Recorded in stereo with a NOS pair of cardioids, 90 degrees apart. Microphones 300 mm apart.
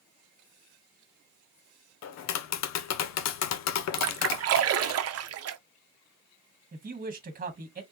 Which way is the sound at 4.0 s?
55° right.